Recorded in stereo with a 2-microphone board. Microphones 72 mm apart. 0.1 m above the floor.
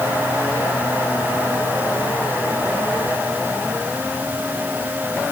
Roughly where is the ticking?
No ticking in this recording.